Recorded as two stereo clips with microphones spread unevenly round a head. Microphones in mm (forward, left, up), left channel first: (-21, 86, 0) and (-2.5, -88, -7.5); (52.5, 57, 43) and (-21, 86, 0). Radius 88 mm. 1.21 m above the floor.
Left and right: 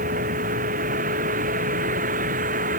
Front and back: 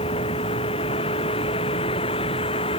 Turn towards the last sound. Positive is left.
turn(degrees=-35)